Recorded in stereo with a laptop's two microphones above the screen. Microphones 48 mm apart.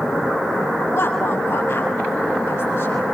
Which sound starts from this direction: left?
A woman speaking, at 0.9 s.